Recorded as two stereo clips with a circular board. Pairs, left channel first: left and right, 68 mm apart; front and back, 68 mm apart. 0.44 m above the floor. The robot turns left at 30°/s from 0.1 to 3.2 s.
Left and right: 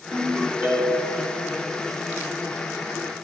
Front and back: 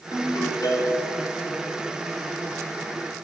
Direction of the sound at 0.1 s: 15° right.